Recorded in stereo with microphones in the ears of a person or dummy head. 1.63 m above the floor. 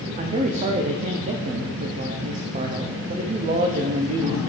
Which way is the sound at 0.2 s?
35° right (ahead or behind).